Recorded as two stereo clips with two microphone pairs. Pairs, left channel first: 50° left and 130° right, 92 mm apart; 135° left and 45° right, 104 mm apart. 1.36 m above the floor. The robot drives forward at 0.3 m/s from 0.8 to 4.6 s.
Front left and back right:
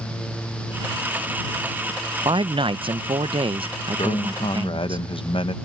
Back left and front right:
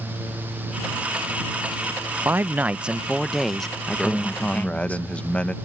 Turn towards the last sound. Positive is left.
turn(degrees=55)